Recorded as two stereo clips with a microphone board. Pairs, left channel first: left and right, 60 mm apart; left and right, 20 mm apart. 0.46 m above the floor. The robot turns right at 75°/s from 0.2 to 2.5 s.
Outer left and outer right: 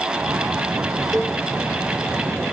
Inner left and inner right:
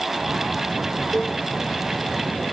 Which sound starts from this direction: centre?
A cowbell, at 1.1 s.